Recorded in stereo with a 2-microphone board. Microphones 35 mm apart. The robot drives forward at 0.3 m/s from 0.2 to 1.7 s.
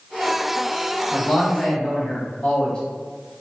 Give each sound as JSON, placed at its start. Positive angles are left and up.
{"t": 1.1, "sound": "a man speaking", "side_deg": 25, "distance_m": 1.7}